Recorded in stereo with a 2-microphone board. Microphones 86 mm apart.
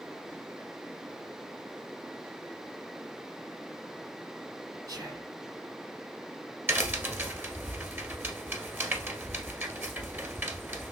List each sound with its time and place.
4.9 s whispering: 50° right (ahead or behind), 4.5 m
6.7 s a crack: 25° right (ahead or behind), 1.6 m